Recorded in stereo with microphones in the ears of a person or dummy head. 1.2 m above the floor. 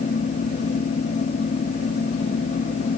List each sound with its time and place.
0.0 s a fan: 45° left (ahead or behind), 0.9 m